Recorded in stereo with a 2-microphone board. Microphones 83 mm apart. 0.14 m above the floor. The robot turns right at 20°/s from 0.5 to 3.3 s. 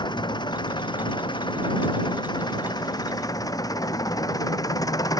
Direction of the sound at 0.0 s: 70° left.